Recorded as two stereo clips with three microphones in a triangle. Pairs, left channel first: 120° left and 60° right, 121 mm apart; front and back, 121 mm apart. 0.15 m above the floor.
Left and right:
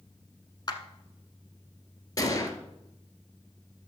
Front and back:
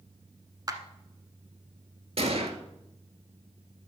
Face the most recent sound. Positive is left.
turn(degrees=175)